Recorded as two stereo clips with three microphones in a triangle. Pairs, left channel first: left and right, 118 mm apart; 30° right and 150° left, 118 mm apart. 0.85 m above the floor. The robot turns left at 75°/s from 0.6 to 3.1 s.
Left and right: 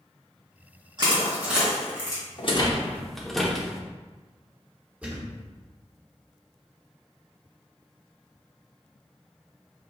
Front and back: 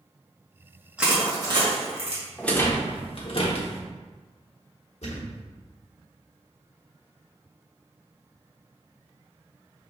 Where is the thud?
10° right, 1.1 m.